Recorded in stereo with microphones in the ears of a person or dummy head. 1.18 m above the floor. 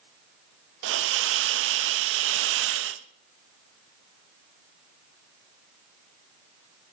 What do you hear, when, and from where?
0.8 s a hiss: 80° right, 0.8 m